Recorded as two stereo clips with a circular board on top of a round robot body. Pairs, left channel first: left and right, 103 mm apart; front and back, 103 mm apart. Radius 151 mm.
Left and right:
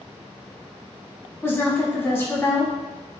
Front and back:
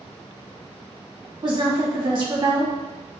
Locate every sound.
1.4 s a woman speaking: 150° left, 2.0 m